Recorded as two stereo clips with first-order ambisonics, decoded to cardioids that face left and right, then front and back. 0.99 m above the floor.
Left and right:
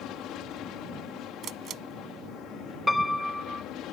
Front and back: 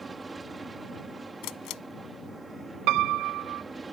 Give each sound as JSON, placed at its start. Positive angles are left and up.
{"t": 0.0, "sound": "an aircraft", "azimuth_deg": 110}
{"t": 1.4, "sound": "a camera shutter", "azimuth_deg": -30}
{"t": 2.9, "sound": "a piano", "azimuth_deg": 170}